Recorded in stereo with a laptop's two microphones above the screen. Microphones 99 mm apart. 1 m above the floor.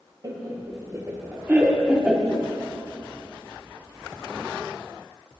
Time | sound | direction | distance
0.2 | laughter | 50° right (ahead or behind) | 1.4 m